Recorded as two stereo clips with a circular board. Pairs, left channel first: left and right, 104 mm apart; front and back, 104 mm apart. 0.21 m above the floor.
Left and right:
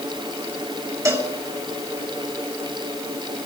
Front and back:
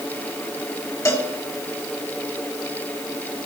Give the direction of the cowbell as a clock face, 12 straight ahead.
1 o'clock.